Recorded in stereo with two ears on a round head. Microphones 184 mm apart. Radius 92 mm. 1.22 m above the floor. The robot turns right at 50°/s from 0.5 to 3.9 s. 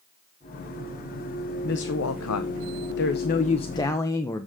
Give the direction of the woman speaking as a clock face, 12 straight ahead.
10 o'clock.